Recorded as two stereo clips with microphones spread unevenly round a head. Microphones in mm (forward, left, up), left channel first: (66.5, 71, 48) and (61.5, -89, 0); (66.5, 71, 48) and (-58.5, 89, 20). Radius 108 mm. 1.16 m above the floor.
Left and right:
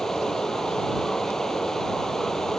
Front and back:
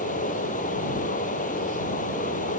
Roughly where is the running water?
Ahead.